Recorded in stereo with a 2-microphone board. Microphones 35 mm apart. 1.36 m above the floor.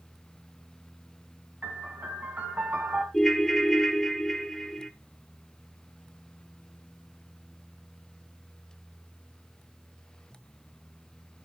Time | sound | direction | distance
1.6 | a piano | 65° right (ahead or behind) | 2.5 m
3.1 | a ringtone | 10° left (ahead or behind) | 0.9 m